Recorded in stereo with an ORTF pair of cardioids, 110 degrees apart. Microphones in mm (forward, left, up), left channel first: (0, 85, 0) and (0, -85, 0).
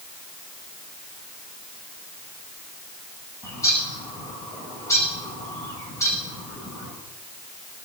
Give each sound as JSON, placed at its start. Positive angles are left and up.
{"t": 3.4, "sound": "a bird", "azimuth_deg": 15, "distance_m": 5.0}